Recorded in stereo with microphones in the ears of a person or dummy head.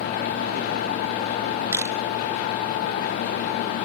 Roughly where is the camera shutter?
Centre.